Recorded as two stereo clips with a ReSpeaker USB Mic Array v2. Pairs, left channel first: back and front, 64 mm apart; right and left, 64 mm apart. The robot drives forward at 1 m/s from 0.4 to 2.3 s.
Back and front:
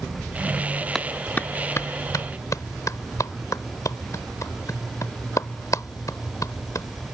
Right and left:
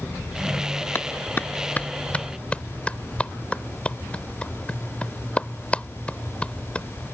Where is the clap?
95° right; by 6.9 s 160° right.